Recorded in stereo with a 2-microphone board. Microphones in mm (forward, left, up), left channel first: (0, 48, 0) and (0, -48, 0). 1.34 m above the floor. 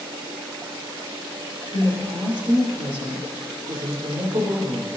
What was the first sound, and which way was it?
A woman speaking, 70° right (ahead or behind).